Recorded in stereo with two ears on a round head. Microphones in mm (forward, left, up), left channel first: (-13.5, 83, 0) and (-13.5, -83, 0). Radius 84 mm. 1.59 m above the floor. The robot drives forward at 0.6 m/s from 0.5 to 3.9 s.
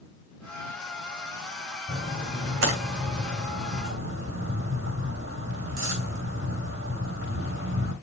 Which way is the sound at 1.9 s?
70° right (ahead or behind).